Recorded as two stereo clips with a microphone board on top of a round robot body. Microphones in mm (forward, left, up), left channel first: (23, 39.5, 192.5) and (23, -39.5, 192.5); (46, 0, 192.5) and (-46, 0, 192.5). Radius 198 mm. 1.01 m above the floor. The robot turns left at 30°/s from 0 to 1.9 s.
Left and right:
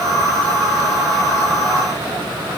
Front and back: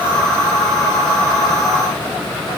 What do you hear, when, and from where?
Only background noise.